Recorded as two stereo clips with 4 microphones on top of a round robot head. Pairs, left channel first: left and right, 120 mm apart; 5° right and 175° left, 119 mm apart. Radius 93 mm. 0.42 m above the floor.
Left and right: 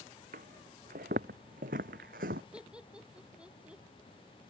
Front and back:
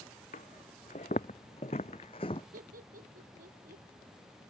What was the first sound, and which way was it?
Footsteps, 55° right.